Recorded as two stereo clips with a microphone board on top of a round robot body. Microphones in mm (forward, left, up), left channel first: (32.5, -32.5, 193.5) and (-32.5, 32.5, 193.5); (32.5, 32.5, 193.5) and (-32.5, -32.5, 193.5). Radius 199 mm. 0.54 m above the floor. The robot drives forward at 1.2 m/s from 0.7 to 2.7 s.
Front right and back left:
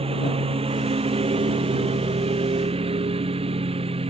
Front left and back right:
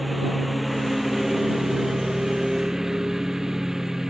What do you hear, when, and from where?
0.0 s a lawn mower: 135° left; by 4.1 s 140° left